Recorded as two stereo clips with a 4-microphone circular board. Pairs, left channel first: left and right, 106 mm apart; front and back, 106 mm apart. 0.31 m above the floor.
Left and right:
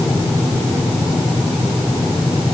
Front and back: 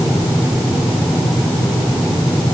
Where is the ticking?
I don't hear ticking.